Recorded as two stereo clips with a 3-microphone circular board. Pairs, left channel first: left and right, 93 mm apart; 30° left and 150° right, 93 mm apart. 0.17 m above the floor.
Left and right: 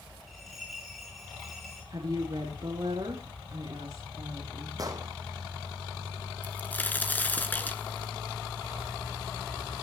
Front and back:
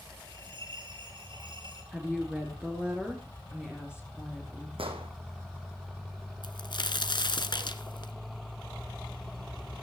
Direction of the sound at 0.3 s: Straight behind.